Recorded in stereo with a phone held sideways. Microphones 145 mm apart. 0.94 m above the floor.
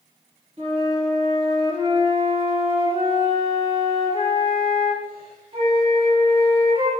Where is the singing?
No singing in this recording.